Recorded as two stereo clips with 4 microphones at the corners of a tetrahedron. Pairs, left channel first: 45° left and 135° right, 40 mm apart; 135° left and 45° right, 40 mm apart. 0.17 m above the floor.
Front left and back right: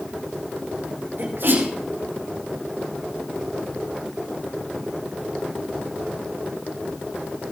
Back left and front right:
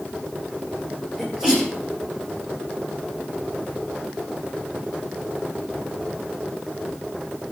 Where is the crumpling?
I don't hear crumpling.